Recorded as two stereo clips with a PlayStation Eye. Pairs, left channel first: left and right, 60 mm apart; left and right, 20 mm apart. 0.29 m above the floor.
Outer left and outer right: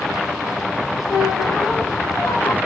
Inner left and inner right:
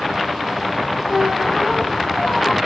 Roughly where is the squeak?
Left.